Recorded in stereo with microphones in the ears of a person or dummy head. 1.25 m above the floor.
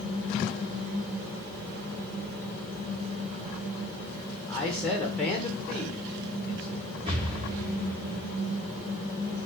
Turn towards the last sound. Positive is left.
turn(degrees=-35)  # may be behind; listen again after turning